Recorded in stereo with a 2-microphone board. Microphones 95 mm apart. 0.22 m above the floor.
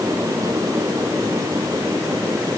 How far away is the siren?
I don't hear a siren.